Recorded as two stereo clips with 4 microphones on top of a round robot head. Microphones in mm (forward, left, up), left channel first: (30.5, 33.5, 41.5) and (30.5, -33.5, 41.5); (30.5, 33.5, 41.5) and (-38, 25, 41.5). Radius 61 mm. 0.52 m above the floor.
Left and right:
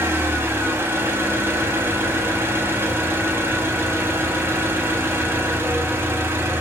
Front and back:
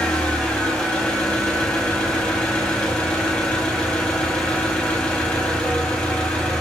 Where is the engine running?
65° right, 1.1 m.